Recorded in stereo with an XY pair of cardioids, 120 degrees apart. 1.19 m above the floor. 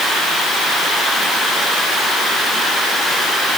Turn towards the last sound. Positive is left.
No sound to turn to.